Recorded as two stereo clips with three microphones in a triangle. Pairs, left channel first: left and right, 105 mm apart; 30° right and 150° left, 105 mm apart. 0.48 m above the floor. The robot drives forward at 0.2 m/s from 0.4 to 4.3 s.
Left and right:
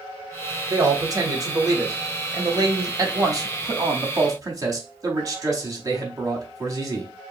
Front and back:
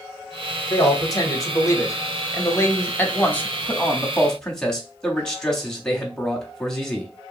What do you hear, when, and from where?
0.7 s a man speaking: 50° right, 1.2 m; by 7.1 s 110° right, 1.1 m